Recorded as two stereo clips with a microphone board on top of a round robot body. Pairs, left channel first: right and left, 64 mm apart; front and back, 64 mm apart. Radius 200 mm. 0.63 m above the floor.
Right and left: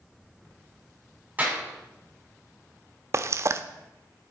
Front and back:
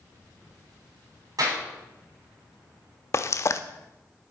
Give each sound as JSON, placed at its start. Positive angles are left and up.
{"t": 1.4, "sound": "a clap", "azimuth_deg": 150, "distance_m": 6.0}
{"t": 3.1, "sound": "frying", "azimuth_deg": 45, "distance_m": 0.6}